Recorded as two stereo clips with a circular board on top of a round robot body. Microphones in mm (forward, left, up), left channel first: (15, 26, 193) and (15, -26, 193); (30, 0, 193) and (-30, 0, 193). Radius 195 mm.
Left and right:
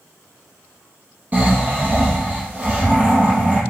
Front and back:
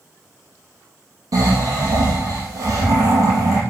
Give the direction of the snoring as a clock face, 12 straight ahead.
5 o'clock.